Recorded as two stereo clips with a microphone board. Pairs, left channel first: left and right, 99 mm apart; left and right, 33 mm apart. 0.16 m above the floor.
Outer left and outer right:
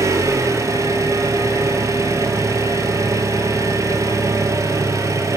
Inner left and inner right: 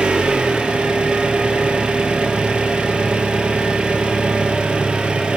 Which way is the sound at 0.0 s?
35° right (ahead or behind).